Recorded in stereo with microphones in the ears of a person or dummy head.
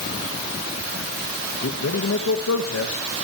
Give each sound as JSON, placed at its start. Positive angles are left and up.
{"t": 1.6, "sound": "a man speaking", "side_deg": 80, "distance_m": 2.0}